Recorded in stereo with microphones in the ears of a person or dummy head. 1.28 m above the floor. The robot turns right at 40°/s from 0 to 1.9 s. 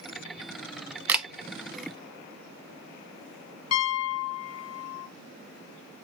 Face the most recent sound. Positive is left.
turn(degrees=75)  # may be behind; listen again after turning